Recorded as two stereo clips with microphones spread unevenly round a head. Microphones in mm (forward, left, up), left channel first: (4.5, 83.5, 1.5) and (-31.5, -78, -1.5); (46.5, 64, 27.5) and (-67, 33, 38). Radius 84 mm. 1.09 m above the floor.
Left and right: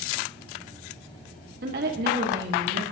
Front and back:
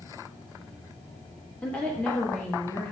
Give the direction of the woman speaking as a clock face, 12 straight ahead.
2 o'clock.